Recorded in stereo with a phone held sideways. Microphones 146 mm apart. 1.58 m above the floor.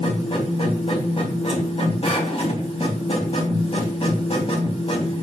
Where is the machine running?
40° left (ahead or behind), 3.5 m.